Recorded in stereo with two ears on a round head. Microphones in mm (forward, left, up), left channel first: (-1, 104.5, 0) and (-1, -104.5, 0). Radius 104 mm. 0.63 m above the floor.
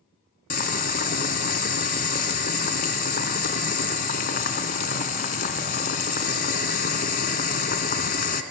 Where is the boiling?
40° left (ahead or behind), 1.5 m.